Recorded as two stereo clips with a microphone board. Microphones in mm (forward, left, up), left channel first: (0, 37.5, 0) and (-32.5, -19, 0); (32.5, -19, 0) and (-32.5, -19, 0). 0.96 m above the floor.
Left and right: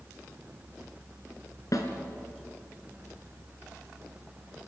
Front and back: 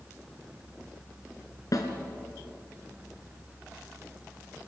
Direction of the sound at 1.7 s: 30° left.